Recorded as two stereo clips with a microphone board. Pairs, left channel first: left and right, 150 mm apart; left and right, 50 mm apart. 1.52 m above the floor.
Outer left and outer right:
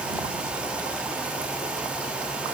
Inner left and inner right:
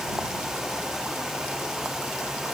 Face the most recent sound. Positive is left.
No sound to turn to.